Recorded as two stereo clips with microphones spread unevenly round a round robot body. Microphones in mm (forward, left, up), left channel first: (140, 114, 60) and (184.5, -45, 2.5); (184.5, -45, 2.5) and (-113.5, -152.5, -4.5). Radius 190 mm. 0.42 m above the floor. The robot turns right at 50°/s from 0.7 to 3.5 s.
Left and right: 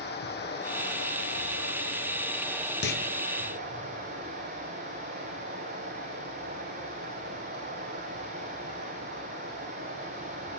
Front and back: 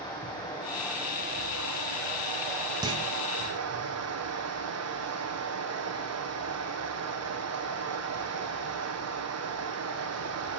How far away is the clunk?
About 1.2 m.